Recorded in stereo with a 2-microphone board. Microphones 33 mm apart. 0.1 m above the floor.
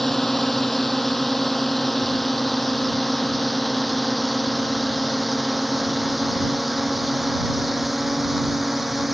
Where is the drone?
5° left (ahead or behind); by 9.1 s 10° right (ahead or behind).